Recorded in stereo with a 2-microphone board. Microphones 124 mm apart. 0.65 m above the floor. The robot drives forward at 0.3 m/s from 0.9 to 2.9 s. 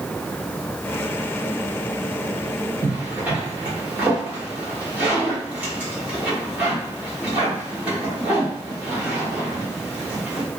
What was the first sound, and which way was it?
A zipper, 15° right (ahead or behind).